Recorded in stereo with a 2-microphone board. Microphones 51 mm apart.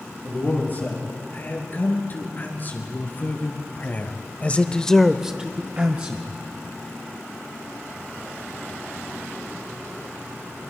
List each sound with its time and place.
0.2 s a man speaking: 40° left (ahead or behind), 7 m; by 6.3 s 35° right (ahead or behind), 1.9 m